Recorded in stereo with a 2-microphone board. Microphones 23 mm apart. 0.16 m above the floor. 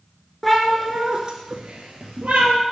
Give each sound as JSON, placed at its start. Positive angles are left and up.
{"t": 0.4, "sound": "a cat meowing", "side_deg": 5, "distance_m": 0.6}